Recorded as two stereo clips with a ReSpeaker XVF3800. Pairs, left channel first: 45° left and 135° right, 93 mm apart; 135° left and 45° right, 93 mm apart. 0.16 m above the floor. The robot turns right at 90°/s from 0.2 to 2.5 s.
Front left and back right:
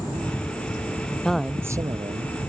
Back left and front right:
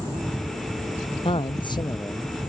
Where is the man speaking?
125° left; by 2.3 s 135° right.